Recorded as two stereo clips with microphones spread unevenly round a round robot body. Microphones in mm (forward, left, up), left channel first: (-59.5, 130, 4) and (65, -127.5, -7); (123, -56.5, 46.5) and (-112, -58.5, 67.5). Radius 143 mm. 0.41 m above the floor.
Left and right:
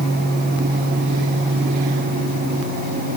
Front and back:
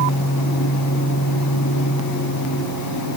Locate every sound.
Only background noise.